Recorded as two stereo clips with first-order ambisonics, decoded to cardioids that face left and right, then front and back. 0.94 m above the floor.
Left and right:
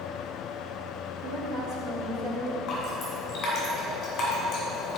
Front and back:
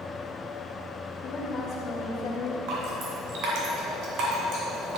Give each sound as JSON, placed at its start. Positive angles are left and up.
{"t": 1.2, "sound": "a woman speaking", "azimuth_deg": -55, "distance_m": 1.8}
{"t": 2.7, "sound": "dripping", "azimuth_deg": 145, "distance_m": 2.5}